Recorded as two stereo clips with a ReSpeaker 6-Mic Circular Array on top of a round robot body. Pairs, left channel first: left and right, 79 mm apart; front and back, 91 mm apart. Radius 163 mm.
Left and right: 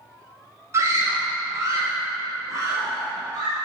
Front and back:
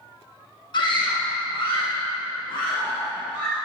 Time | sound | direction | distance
0.7 | a scream | 35° right | 2.5 m